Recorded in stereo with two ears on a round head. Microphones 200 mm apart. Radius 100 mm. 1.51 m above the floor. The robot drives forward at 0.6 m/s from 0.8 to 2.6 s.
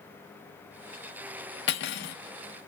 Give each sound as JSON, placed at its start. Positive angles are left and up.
{"t": 1.7, "sound": "cutlery clinking", "side_deg": 50, "distance_m": 1.2}